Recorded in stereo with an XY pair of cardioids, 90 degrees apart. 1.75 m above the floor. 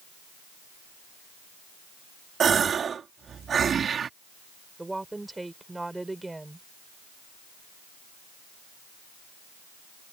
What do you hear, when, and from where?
2.4 s a gasp: 55° right
4.8 s a woman speaking: 15° right